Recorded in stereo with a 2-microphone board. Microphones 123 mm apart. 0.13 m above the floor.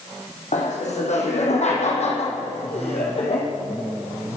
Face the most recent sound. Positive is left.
turn(degrees=55)  # may be behind; listen again after turning